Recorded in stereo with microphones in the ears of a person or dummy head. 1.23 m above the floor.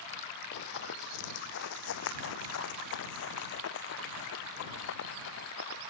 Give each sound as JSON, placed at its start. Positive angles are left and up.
{"t": 0.5, "sound": "running footsteps", "side_deg": 50}